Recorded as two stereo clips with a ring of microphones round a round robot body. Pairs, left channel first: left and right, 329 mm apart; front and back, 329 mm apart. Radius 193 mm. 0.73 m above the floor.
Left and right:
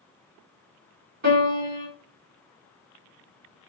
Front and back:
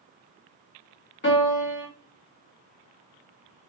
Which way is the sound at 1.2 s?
55° right.